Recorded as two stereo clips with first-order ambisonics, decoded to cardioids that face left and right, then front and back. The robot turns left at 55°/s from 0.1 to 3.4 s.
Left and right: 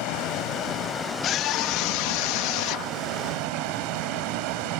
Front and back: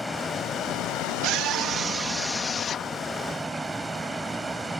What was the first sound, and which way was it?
A vehicle, 80° left.